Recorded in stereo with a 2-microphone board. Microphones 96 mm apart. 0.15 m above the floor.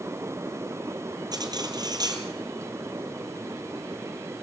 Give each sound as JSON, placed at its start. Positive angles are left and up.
{"t": 1.3, "sound": "cutlery clinking", "side_deg": -45, "distance_m": 2.5}